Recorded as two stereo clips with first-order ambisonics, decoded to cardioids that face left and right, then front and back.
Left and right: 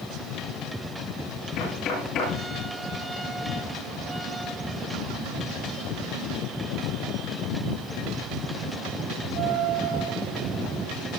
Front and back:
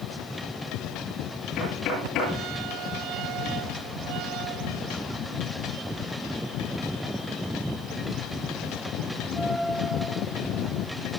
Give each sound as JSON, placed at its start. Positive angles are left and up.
{"t": 1.6, "sound": "knocking", "azimuth_deg": 45, "distance_m": 9.5}